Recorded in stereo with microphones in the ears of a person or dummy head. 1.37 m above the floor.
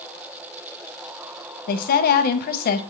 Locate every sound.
1.7 s a woman speaking: 50° left (ahead or behind), 0.7 m